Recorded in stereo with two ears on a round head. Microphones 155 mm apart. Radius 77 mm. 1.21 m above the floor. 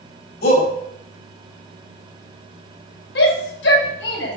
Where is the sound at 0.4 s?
65° left (ahead or behind), 6 m.